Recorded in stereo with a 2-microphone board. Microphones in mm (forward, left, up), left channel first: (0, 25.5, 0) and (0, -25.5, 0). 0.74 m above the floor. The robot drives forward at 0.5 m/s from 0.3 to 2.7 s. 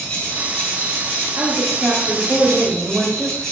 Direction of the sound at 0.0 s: 25° left (ahead or behind).